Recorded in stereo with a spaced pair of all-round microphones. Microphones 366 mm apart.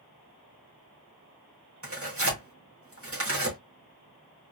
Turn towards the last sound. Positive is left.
turn(degrees=-35)  # may be behind; listen again after turning